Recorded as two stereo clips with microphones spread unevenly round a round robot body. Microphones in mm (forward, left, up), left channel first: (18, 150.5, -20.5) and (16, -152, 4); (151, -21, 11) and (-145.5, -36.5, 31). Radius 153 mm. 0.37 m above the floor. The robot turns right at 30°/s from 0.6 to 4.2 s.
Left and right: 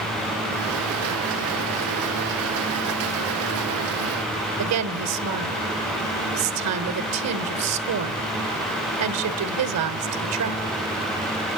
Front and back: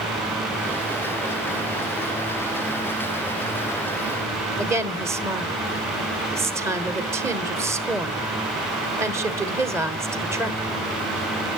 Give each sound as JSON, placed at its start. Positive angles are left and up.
{"t": 4.6, "sound": "a woman speaking", "azimuth_deg": -95, "distance_m": 1.1}